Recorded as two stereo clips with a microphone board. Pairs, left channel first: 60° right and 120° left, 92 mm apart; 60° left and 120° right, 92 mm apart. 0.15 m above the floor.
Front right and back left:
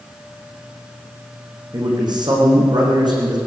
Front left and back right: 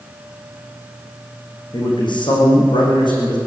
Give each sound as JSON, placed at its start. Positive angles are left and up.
{"t": 1.7, "sound": "a man speaking", "azimuth_deg": 85, "distance_m": 9.5}